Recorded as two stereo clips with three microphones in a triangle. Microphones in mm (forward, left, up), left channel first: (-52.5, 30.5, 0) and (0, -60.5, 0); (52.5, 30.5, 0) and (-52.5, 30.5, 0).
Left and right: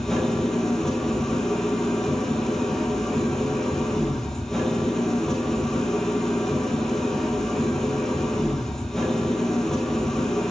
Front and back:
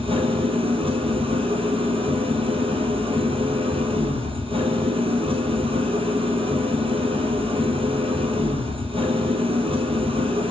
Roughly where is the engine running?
Behind right.